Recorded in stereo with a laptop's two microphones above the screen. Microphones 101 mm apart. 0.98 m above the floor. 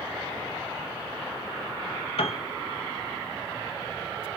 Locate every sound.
2.2 s a piano: 65° left (ahead or behind), 0.6 m